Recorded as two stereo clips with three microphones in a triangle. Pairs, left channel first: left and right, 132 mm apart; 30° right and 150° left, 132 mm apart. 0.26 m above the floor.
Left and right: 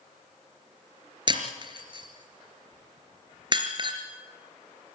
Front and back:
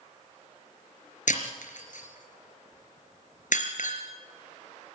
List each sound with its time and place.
1.3 s breaking glass: 35° right, 3 m